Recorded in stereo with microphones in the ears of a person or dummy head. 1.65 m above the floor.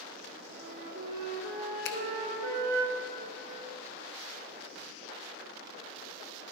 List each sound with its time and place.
0.5 s a flute: 55° right (ahead or behind), 1.4 m
1.9 s a finger snap: 60° left (ahead or behind), 0.6 m